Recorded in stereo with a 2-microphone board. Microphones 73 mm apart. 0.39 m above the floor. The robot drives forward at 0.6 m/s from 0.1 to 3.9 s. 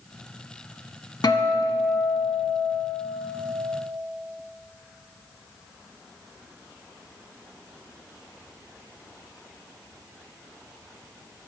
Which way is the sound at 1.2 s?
75° left (ahead or behind).